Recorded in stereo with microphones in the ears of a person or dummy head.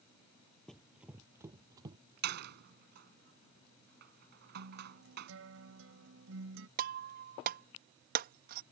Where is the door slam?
65° right (ahead or behind).